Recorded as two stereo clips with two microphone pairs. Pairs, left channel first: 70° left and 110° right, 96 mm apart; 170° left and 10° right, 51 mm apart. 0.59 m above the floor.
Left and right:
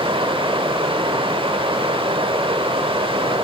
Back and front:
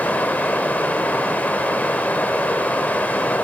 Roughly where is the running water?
Behind right.